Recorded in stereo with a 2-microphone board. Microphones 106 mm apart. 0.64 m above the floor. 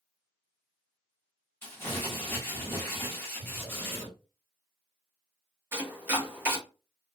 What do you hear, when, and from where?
1.6 s crumpling: 20° left (ahead or behind), 1.0 m
3.4 s breathing: 5° left (ahead or behind), 1.7 m
5.7 s chopping: 20° right (ahead or behind), 1.0 m